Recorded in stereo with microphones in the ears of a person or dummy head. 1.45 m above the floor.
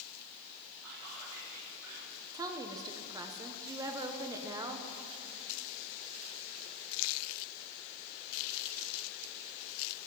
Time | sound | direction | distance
0.8 | whispering | 65° right (ahead or behind) | 4.5 m
2.3 | a woman speaking | 20° right (ahead or behind) | 0.9 m